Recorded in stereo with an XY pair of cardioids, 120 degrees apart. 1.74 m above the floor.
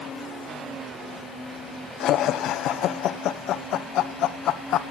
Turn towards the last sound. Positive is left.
turn(degrees=70)